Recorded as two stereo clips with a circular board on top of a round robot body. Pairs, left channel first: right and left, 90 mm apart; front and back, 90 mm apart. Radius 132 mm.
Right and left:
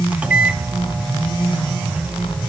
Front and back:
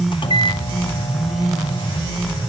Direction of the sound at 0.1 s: 15° left.